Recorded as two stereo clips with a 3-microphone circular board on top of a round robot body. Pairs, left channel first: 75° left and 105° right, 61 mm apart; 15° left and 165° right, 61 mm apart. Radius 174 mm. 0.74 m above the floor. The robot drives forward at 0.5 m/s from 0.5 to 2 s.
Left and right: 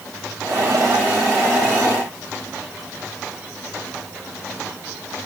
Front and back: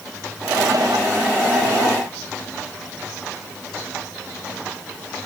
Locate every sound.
Only background noise.